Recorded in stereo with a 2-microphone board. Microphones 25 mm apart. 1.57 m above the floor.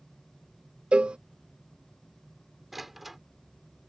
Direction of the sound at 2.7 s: 10° right (ahead or behind).